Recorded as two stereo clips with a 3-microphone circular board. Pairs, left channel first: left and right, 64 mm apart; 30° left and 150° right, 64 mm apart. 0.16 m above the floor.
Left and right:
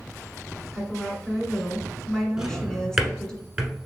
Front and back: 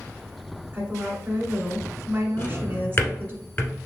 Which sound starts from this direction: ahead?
A drawer, at 2.4 s.